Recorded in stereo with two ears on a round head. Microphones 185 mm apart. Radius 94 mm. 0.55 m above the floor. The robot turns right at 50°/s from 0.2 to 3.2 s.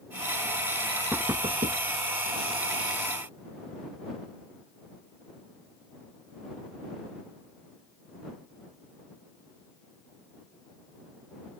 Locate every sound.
1.1 s knocking: 5° right (ahead or behind); by 1.8 s 40° right (ahead or behind)